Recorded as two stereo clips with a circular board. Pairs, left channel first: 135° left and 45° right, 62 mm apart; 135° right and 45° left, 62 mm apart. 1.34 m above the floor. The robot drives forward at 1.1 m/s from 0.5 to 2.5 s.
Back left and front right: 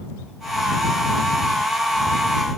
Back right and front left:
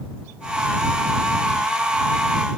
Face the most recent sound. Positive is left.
No sound to turn to.